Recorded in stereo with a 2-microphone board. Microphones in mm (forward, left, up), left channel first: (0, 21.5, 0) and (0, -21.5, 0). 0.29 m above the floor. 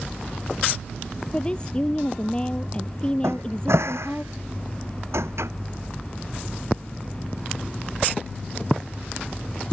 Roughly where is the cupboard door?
Right.